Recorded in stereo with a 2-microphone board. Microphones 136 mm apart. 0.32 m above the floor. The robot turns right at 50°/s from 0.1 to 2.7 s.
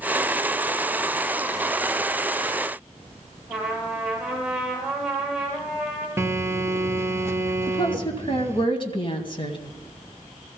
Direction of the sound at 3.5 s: 10° right (ahead or behind).